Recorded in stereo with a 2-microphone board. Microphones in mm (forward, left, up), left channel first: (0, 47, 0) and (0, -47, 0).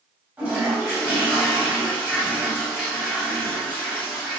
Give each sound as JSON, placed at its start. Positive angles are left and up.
{"t": 0.4, "sound": "a toilet flushing", "side_deg": -15, "distance_m": 1.5}